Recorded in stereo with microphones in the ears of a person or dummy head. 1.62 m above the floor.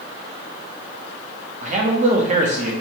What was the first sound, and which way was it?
A man speaking, 40° right (ahead or behind).